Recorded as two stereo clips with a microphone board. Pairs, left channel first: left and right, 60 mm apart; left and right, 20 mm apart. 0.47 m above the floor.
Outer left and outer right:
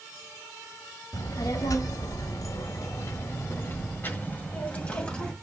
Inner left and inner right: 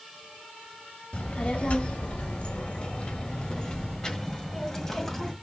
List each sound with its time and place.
1.1 s a child speaking: 70° left (ahead or behind), 1.6 m; by 5.3 s 15° left (ahead or behind), 2 m